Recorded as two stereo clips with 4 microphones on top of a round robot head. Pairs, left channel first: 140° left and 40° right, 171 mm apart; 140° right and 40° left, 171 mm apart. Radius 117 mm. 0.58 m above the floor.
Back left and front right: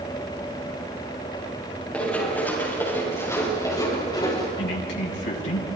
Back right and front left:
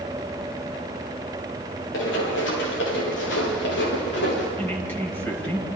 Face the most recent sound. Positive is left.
turn(degrees=140)